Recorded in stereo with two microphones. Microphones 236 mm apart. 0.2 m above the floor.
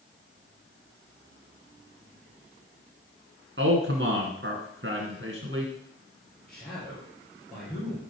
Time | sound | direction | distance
3.6 | a man speaking | 55° right (ahead or behind) | 2 m
6.5 | a man speaking | 5° left (ahead or behind) | 5.5 m